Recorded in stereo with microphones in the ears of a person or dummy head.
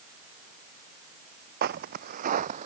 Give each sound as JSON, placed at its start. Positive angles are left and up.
{"t": 1.6, "sound": "footsteps", "side_deg": -55}